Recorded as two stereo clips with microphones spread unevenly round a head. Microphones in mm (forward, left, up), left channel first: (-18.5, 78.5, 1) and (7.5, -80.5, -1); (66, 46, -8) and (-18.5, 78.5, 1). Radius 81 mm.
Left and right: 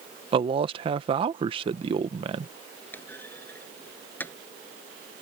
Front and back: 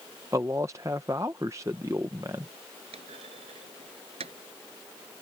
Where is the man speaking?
130° right.